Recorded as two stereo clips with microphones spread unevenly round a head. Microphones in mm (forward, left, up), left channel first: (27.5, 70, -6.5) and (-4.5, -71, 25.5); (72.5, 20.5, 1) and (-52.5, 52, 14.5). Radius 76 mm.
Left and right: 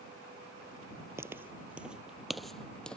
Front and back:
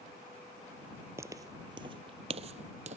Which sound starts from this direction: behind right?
Footsteps, at 1.2 s.